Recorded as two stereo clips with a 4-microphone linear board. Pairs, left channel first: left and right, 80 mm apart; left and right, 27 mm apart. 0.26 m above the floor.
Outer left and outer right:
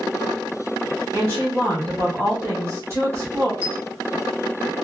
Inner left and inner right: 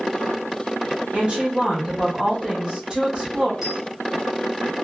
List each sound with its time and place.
1.1 s a woman speaking: 35° right (ahead or behind), 1.6 m
3.6 s a dropped coin: 15° right (ahead or behind), 1.5 m